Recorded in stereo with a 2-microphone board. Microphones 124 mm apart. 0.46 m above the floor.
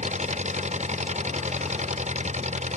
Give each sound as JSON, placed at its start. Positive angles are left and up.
{"t": 0.0, "sound": "an engine running", "side_deg": -70}